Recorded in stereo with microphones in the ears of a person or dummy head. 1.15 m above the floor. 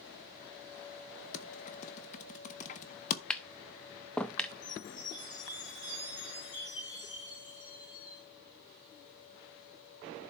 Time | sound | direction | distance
1.3 | typing on a keyboard | 40° left (ahead or behind) | 0.9 m
3.3 | tapping | 10° left (ahead or behind) | 0.5 m
4.6 | a chime | 20° left (ahead or behind) | 5 m